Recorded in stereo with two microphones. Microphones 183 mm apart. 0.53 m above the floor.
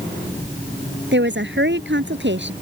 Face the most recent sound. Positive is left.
turn(degrees=-85)